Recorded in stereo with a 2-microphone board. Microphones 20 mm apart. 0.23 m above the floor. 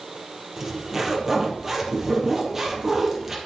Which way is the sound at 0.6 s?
20° right (ahead or behind).